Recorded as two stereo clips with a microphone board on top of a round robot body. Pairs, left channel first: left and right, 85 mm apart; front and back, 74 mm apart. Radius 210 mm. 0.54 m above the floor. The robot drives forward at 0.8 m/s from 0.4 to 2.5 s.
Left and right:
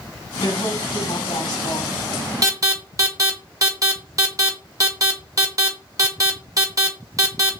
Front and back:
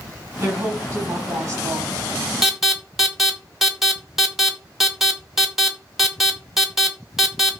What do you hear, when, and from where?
0.4 s a woman speaking: 120° left, 5 m; by 2.0 s 130° left, 5.5 m
2.4 s an alarm: 95° right, 2 m